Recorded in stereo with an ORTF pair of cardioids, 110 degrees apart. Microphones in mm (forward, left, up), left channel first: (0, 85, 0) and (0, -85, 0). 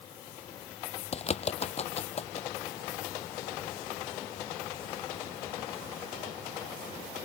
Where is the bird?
40° left.